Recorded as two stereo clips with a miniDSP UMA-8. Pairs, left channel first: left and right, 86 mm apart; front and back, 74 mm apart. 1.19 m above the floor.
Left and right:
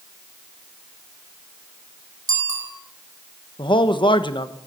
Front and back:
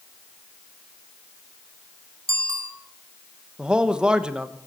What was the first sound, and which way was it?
A bicycle bell, 135° right.